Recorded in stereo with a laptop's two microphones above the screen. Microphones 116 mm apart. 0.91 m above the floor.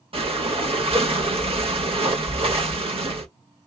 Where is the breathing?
55° right (ahead or behind), 0.9 m.